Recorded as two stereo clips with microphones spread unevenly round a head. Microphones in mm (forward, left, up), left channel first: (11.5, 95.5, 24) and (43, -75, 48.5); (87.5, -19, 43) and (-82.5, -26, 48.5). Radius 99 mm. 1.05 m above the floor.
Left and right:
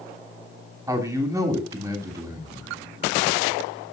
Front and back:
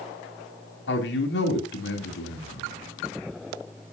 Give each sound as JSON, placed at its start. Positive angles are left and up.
{"t": 0.9, "sound": "a man speaking", "azimuth_deg": -5, "distance_m": 3.0}